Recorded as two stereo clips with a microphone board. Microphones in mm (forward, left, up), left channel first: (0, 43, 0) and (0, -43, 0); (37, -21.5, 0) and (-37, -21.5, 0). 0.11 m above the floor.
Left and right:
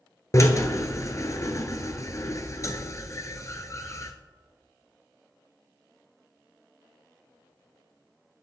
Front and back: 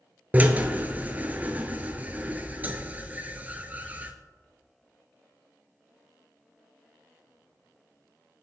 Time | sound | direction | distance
0.3 | a drill | 125° left | 0.9 m